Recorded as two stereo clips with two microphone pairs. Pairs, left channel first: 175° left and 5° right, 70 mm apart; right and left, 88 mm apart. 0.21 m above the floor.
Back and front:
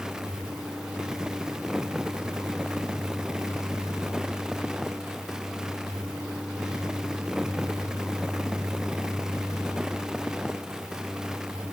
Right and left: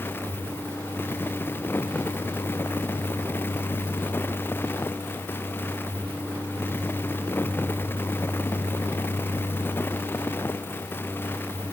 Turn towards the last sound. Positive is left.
No sound to turn to.